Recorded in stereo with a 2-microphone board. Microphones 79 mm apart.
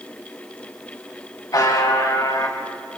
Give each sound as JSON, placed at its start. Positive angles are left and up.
{"t": 1.5, "sound": "a buzzer", "side_deg": 60, "distance_m": 4.0}